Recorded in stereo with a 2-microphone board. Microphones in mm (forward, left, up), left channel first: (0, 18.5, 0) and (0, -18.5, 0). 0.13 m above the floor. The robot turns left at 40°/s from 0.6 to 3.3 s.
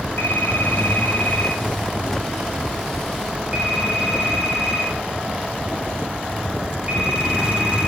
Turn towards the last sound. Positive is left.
turn(degrees=-35)  # may be behind; listen again after turning